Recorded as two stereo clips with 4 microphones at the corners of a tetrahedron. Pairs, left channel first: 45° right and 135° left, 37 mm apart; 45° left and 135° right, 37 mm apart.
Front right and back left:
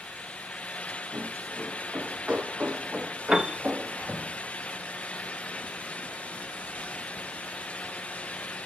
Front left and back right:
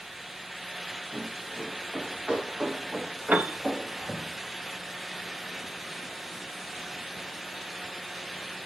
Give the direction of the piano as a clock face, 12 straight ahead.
5 o'clock.